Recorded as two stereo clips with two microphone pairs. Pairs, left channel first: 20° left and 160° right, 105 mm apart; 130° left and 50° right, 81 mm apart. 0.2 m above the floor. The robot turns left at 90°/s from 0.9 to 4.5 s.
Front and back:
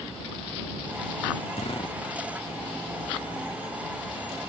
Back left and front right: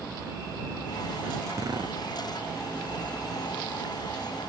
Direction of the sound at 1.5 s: 5° left.